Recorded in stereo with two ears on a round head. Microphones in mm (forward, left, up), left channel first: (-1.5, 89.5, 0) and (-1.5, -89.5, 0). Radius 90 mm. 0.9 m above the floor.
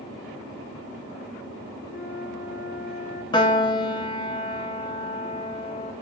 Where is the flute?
55° left (ahead or behind), 3 m.